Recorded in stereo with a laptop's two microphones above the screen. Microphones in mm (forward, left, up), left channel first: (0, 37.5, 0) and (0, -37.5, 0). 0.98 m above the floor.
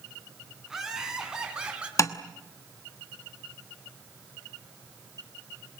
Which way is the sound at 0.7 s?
5° right (ahead or behind).